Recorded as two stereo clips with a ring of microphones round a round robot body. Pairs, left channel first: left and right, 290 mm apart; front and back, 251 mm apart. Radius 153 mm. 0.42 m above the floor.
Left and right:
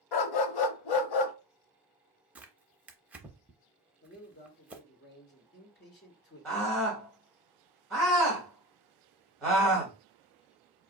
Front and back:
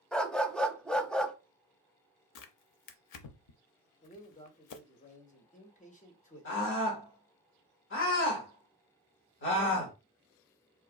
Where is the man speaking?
50° left, 1.3 m.